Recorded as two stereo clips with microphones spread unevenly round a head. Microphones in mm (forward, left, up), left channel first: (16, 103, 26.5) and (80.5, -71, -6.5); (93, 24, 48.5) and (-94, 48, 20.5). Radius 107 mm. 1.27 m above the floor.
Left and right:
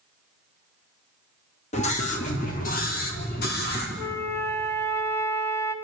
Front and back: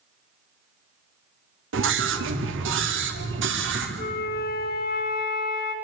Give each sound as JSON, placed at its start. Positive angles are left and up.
{"t": 1.7, "sound": "a scream", "azimuth_deg": 175, "distance_m": 2.5}
{"t": 4.0, "sound": "a flute", "azimuth_deg": 35, "distance_m": 2.5}